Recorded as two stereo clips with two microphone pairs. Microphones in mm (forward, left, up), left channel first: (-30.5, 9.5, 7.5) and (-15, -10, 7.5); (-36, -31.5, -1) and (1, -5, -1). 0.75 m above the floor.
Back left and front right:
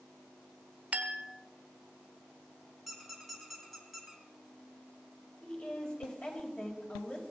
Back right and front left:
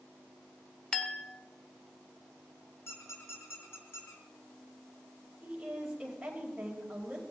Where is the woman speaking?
105° left, 4.5 m.